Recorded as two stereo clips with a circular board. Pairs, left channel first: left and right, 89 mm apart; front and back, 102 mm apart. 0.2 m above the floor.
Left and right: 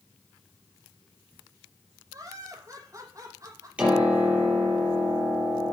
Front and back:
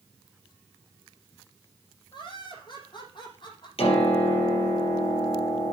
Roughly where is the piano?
Ahead.